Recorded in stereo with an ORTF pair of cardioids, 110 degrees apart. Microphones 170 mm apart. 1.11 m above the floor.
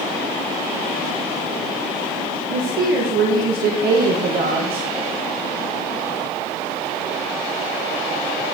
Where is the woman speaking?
65° right, 0.8 m.